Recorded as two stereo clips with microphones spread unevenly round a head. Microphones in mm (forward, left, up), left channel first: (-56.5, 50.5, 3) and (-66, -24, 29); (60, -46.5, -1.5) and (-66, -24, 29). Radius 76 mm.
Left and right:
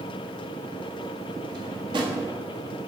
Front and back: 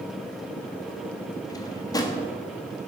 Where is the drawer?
75° right, 1.5 m.